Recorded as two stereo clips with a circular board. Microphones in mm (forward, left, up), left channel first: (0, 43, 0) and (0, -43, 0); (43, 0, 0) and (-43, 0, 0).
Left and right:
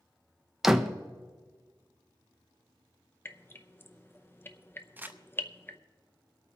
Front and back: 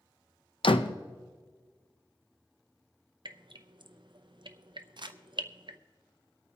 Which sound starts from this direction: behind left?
Dripping, at 3.2 s.